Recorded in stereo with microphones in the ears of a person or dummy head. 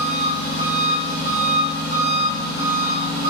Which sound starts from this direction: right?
An engine running, at 0.0 s.